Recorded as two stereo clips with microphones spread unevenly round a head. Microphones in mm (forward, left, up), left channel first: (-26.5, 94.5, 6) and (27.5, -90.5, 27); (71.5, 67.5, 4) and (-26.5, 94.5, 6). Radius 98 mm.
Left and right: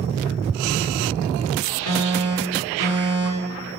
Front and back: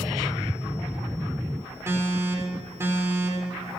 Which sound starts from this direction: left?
An alarm, at 1.9 s.